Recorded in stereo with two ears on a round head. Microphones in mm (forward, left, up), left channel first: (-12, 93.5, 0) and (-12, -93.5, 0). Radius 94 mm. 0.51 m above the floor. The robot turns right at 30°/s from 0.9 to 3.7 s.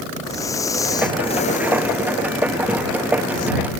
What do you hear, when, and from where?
0.2 s breathing: 15° left; by 3.5 s 95° left